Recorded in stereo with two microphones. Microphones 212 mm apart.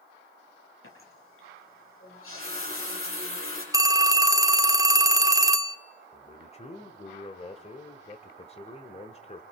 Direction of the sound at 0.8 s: 80° left.